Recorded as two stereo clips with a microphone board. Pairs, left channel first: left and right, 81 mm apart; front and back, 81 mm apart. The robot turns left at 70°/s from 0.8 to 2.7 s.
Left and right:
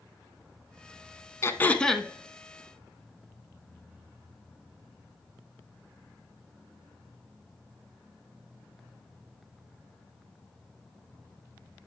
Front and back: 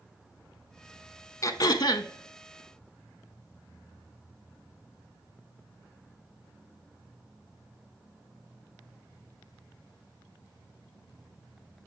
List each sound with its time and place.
1.4 s throat clearing: 40° left, 0.5 m; by 2.1 s 5° right, 0.5 m